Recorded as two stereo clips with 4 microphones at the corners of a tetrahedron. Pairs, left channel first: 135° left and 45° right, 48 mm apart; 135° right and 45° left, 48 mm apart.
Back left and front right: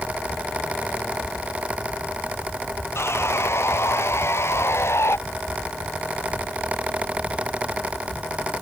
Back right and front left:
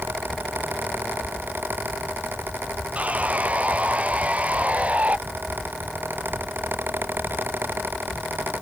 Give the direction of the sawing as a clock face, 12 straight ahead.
8 o'clock.